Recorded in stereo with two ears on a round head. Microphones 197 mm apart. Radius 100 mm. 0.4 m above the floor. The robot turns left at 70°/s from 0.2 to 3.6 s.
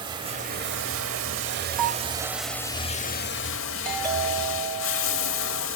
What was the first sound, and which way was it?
Running water, 25° right.